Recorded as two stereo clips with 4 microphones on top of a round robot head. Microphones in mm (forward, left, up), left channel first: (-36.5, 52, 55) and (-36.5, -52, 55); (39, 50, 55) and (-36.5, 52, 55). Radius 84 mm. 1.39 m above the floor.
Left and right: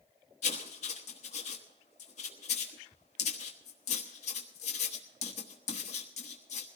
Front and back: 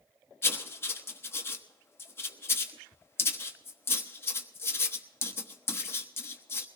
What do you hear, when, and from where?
0.4 s writing: 55° left, 1.1 m